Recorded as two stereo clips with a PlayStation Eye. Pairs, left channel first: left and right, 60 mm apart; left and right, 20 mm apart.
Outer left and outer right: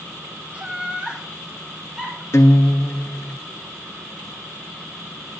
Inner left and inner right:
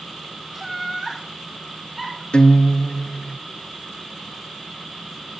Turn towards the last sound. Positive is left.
turn(degrees=50)  # may be behind; listen again after turning